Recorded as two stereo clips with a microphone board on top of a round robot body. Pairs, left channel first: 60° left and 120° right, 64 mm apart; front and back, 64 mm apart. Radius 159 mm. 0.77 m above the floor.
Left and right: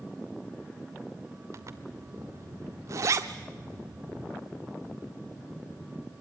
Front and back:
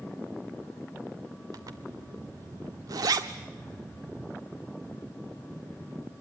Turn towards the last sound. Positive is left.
turn(degrees=-155)